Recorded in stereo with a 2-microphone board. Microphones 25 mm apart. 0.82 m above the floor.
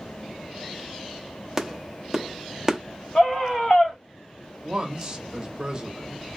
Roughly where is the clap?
Centre.